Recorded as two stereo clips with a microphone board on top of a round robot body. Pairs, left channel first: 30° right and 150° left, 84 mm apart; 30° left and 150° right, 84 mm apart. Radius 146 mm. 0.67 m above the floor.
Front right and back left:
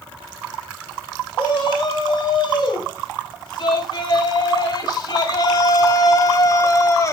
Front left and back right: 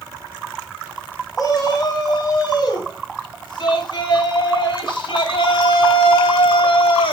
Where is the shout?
10° right, 6 m; by 7.1 s 25° left, 4 m.